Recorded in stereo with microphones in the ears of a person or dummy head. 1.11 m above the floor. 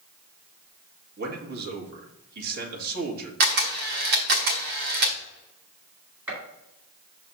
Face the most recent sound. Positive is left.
turn(degrees=-15)  # may be behind; listen again after turning